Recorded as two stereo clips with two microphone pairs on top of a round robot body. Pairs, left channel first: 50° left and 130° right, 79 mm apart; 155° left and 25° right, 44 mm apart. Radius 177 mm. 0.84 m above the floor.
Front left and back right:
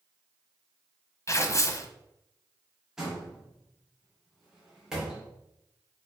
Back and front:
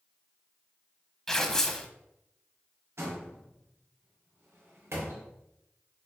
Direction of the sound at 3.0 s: 45° right.